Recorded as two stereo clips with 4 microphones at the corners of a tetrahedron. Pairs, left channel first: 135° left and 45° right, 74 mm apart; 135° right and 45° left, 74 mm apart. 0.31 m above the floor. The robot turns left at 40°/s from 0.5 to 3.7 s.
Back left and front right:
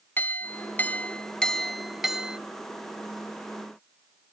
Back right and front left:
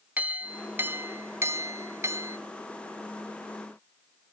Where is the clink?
100° left, 0.8 m; by 2.4 s 25° left, 0.8 m.